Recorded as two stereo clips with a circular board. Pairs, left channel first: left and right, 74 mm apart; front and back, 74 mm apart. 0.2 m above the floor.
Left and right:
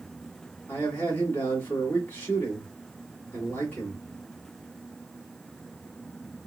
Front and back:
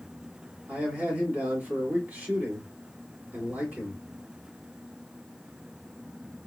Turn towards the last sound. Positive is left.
turn(degrees=130)